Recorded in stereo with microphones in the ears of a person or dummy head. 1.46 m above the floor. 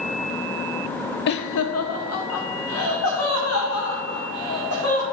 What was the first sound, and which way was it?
Laughter, 55° left (ahead or behind).